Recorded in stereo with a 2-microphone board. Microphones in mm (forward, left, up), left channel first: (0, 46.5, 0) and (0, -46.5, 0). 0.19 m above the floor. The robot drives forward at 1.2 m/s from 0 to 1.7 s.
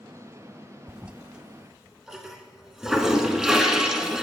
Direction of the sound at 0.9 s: 10° right (ahead or behind).